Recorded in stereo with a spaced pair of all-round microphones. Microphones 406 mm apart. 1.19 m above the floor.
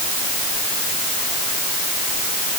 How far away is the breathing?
I don't hear breathing.